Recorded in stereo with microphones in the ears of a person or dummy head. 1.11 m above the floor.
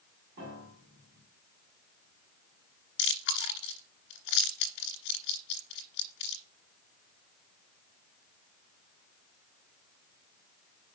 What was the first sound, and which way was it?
A piano, 60° right (ahead or behind).